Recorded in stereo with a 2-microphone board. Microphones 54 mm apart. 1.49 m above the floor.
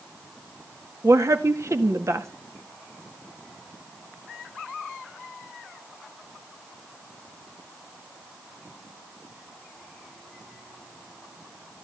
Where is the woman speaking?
60° right (ahead or behind), 2.0 m.